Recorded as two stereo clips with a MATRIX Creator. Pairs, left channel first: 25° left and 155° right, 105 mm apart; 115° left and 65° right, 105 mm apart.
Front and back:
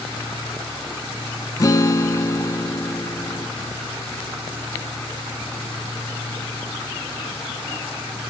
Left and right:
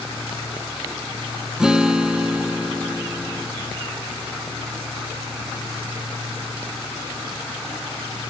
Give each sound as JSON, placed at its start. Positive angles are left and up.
{"t": 1.6, "sound": "a guitar", "azimuth_deg": 10, "distance_m": 0.6}